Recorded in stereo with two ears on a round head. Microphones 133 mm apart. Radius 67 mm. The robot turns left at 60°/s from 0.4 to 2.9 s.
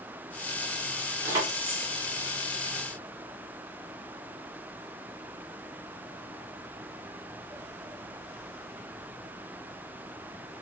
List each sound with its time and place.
1.2 s keys jangling: 20° right (ahead or behind), 0.9 m; by 1.9 s 45° right (ahead or behind), 0.9 m